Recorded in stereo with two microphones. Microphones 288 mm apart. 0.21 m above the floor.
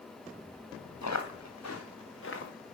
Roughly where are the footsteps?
Left.